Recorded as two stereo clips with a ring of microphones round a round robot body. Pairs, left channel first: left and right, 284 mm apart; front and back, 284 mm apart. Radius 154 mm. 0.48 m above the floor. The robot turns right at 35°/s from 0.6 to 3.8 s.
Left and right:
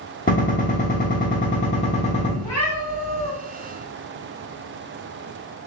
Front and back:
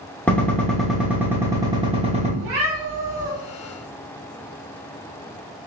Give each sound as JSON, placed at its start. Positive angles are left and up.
{"t": 0.3, "sound": "a gunshot", "azimuth_deg": 80, "distance_m": 1.0}
{"t": 2.4, "sound": "a cat meowing", "azimuth_deg": 165, "distance_m": 1.0}